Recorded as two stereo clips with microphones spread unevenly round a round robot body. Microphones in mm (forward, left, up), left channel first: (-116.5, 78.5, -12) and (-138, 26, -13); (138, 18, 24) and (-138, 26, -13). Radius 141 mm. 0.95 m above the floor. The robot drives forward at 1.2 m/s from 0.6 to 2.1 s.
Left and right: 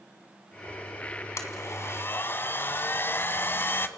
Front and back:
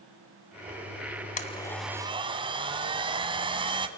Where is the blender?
50° left, 1.3 m; by 3.9 s 105° left, 1.1 m.